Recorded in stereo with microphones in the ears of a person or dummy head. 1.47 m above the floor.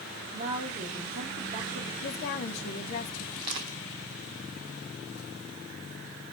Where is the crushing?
20° right (ahead or behind), 1.1 m.